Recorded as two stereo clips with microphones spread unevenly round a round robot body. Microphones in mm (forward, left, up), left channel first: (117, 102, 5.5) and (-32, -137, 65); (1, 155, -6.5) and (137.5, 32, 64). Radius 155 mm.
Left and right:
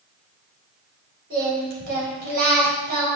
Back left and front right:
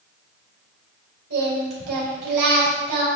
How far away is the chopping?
I don't hear chopping.